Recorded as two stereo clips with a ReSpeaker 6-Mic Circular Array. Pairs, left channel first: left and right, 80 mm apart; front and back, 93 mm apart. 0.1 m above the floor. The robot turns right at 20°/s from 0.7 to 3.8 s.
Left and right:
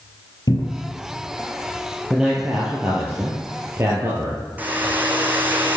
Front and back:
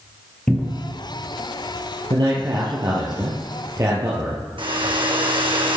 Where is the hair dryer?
160° right, 1.3 m.